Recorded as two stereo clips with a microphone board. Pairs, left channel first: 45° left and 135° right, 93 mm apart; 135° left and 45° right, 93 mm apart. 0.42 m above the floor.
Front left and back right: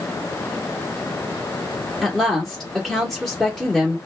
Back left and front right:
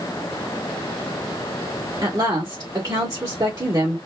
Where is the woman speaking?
45° right, 1.0 m.